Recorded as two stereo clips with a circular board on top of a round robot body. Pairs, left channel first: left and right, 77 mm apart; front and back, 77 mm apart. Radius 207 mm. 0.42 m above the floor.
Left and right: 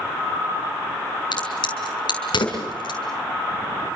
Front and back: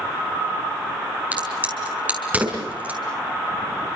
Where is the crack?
110° left, 5.5 m.